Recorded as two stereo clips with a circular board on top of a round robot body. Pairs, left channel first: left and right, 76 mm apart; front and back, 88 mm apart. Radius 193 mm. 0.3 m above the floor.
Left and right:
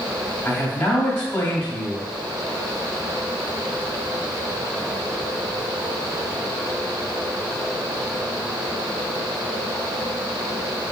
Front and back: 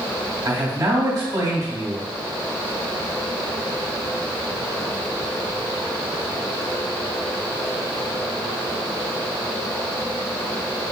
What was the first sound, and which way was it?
A man speaking, 160° left.